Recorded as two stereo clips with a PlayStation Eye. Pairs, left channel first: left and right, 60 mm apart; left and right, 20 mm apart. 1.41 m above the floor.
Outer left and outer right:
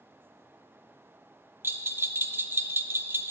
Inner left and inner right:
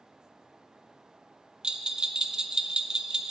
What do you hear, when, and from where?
1.6 s a bell: 35° right (ahead or behind), 0.6 m